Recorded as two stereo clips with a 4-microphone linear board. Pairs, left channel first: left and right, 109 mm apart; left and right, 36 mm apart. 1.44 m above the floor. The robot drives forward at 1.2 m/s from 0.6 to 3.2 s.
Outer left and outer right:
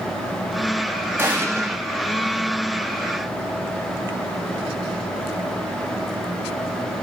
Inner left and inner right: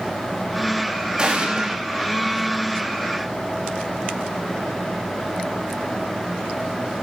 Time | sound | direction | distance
1.2 | an explosion | 20° right (ahead or behind) | 3 m